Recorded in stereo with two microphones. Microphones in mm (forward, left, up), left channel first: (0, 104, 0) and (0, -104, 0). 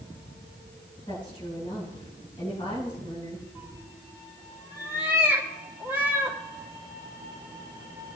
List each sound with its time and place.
1.1 s a woman speaking: 25° left (ahead or behind), 9 m
3.5 s a cat meowing: 10° right (ahead or behind), 2.5 m